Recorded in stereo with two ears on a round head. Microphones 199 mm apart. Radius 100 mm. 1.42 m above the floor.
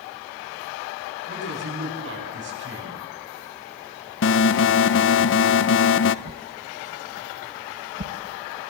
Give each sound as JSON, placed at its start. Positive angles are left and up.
{"t": 1.3, "sound": "a man speaking", "side_deg": -55, "distance_m": 9.5}
{"t": 4.2, "sound": "an alarm", "side_deg": 55, "distance_m": 0.7}
{"t": 6.2, "sound": "a whoosh", "side_deg": -40, "distance_m": 1.6}